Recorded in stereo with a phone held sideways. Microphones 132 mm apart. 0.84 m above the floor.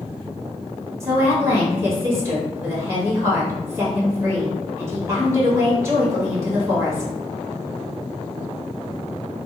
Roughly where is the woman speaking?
Right.